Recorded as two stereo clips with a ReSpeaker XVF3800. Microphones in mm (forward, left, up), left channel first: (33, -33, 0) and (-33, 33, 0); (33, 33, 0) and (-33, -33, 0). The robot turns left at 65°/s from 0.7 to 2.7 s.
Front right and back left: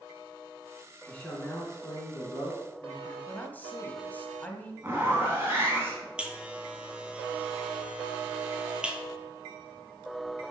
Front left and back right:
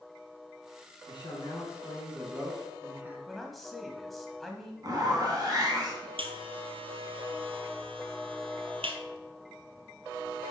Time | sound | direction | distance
1.1 | a man speaking | 35° left | 2.5 m
3.3 | a man speaking | 40° right | 1.0 m
4.8 | a zipper | 165° right | 2.5 m
6.2 | a buzzer | 145° right | 0.9 m